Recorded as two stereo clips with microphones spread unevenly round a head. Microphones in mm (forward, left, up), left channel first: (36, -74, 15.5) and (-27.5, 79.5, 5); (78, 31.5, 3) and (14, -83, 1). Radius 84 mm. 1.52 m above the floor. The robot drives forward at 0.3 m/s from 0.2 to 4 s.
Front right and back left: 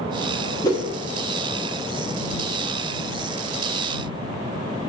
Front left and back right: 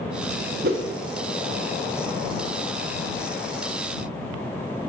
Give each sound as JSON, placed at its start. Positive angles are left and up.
{"t": 0.6, "sound": "a whoosh", "azimuth_deg": -140, "distance_m": 0.5}